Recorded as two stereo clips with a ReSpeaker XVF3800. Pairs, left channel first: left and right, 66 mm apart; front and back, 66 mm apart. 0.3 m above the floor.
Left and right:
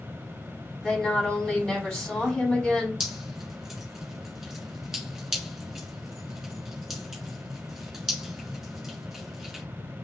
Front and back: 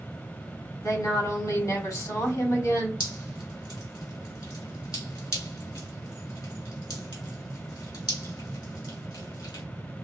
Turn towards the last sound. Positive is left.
turn(degrees=-5)